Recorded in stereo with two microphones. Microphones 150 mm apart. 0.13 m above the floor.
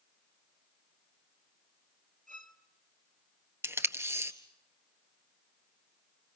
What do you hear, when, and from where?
2.3 s a violin: 55° right (ahead or behind), 1.2 m
3.6 s tape being pulled: 15° right (ahead or behind), 1.5 m